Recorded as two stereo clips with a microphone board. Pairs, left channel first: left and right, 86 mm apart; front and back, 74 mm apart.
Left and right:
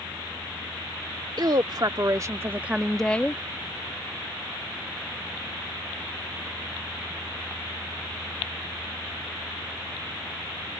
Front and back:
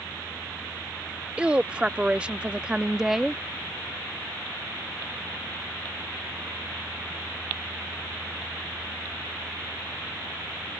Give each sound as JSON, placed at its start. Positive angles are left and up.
{"t": 1.4, "sound": "a woman speaking", "azimuth_deg": -110}